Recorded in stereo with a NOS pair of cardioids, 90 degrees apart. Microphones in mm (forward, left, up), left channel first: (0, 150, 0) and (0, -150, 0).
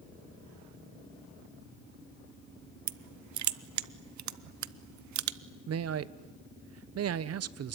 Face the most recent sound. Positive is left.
turn(degrees=-55)